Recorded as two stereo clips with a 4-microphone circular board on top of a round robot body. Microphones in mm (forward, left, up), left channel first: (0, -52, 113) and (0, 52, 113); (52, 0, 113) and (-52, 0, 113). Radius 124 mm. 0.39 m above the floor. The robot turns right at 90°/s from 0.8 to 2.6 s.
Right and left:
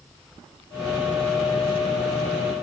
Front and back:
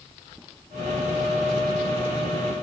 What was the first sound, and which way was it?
Only background noise.